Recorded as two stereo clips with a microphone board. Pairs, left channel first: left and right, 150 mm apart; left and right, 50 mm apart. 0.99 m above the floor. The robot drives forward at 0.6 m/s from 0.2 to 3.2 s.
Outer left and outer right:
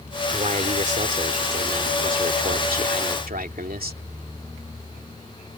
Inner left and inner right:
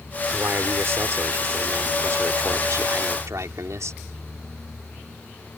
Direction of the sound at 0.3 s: 55° right (ahead or behind).